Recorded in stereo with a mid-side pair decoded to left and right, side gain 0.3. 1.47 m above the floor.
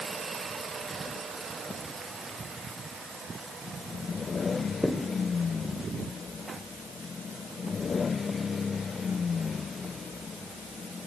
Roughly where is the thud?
Ahead.